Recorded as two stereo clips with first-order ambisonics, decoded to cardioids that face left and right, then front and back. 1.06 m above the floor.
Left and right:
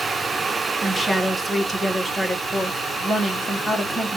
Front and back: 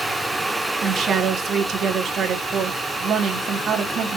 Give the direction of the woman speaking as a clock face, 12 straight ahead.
6 o'clock.